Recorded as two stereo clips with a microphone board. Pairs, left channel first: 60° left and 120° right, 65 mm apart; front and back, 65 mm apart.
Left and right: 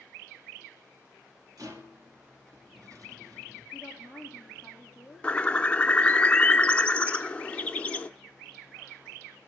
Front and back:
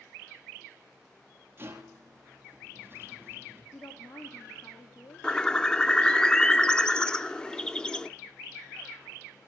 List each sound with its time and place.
1.6 s a rattle: 130° right, 2.5 m
3.7 s a woman speaking: 45° right, 6 m
5.2 s a bird: 50° left, 0.6 m